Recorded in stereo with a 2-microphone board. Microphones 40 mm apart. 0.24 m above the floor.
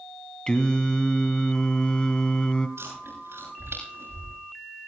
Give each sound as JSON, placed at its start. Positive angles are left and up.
{"t": 0.5, "sound": "singing", "side_deg": 25, "distance_m": 1.3}
{"t": 2.8, "sound": "chewing", "side_deg": -85, "distance_m": 7.5}